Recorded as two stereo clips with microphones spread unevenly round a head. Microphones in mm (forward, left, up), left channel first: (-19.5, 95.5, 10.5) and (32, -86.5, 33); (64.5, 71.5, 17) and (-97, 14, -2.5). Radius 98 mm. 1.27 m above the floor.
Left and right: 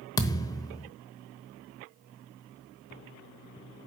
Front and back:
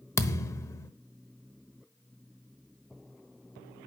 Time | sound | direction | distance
0.2 | a thud | 45° left | 1.0 m